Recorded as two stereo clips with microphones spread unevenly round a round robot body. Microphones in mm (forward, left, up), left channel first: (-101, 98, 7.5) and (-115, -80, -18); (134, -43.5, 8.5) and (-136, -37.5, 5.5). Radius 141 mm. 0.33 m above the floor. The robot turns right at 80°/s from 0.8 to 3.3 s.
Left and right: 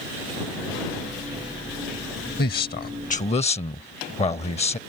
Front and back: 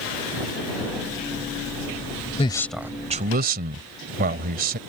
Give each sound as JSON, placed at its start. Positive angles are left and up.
{"t": 2.4, "sound": "a man speaking", "azimuth_deg": 60}